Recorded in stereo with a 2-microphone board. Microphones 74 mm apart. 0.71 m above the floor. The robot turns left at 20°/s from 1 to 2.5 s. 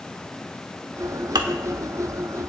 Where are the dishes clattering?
80° right, 1.1 m.